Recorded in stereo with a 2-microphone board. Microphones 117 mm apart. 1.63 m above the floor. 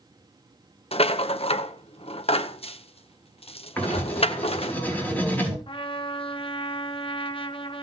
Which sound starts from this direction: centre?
Writing, at 3.8 s.